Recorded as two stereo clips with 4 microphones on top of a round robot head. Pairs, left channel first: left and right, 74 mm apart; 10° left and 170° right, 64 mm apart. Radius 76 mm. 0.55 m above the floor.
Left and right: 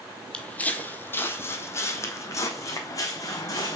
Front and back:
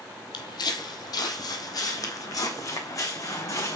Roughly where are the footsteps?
Ahead.